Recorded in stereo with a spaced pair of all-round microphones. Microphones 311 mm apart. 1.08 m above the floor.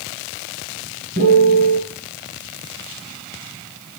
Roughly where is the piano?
Right.